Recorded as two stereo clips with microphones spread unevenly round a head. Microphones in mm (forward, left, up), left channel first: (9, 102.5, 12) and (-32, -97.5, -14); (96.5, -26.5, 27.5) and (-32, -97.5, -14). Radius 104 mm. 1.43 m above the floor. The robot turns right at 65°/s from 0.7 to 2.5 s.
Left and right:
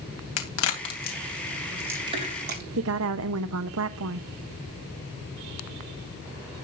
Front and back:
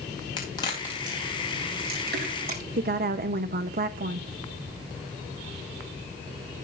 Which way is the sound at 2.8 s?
125° right.